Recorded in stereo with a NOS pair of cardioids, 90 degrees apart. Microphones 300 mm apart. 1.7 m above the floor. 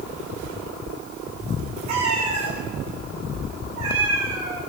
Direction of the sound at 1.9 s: 65° right.